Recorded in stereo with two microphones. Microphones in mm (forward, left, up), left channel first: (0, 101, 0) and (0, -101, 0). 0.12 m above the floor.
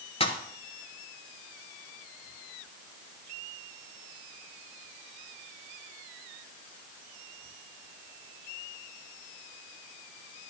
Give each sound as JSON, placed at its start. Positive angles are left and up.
{"t": 0.2, "sound": "a pop", "side_deg": 30, "distance_m": 1.3}